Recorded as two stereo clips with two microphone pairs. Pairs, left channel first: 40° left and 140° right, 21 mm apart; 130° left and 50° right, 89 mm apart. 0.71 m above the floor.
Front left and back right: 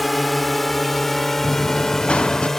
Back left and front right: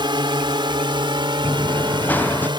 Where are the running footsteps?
60° left; by 2.5 s 65° left.